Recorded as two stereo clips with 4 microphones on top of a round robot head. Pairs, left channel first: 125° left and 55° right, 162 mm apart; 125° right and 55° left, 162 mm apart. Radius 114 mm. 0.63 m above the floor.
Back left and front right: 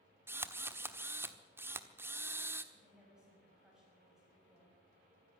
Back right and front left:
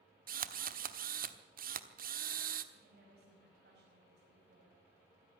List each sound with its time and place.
0.3 s a drill: 20° left, 1.1 m
2.7 s a woman speaking: 30° left, 6 m